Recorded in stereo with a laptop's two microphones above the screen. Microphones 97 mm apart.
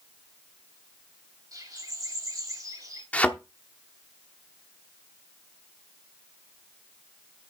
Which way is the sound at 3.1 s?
15° left (ahead or behind).